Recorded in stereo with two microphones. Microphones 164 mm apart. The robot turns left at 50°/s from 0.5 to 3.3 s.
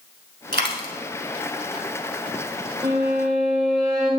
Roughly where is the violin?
Right.